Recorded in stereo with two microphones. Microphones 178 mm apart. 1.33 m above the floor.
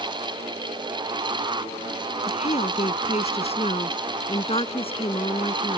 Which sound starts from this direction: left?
A woman speaking, at 2.3 s.